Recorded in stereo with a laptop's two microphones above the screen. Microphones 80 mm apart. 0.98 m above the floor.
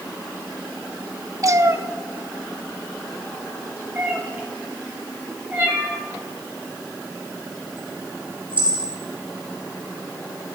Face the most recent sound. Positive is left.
turn(degrees=-20)  # may be behind; listen again after turning